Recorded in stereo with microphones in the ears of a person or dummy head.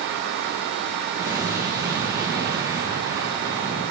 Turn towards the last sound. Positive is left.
turn(degrees=-20)  # may be behind; listen again after turning